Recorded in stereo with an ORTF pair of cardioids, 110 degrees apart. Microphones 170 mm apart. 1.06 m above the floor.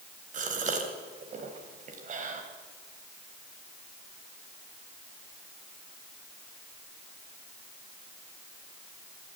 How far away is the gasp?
About 3.5 m.